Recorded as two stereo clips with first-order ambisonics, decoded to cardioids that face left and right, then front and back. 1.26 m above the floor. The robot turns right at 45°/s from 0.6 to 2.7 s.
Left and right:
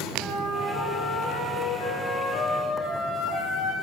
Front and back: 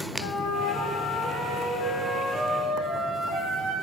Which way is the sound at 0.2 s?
15° left.